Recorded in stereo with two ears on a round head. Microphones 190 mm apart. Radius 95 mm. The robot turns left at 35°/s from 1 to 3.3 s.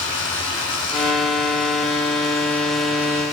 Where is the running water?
65° left, 6.5 m; by 3.3 s 15° right, 6.5 m.